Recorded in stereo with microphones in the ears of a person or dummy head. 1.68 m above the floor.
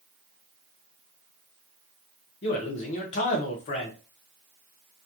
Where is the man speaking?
35° left (ahead or behind), 0.5 m.